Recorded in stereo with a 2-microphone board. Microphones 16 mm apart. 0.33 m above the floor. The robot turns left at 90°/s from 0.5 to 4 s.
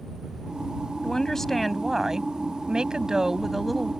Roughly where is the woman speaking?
Left.